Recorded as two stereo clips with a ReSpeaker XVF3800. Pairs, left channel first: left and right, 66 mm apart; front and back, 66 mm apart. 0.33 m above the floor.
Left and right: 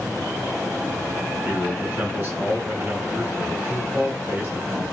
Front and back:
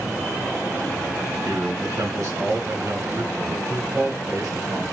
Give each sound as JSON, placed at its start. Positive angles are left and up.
{"t": 1.4, "sound": "a man speaking", "azimuth_deg": -160, "distance_m": 3.5}